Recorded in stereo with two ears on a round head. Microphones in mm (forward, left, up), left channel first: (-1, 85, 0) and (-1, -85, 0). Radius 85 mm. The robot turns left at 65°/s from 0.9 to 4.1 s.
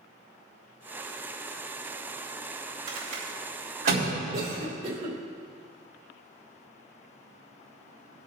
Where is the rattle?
30° right (ahead or behind), 3.5 m; by 4.0 s 70° right (ahead or behind), 3.5 m.